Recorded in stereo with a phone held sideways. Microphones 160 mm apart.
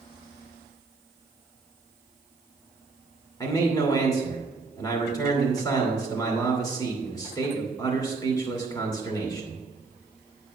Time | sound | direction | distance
3.4 | a man speaking | 20° left (ahead or behind) | 2.5 m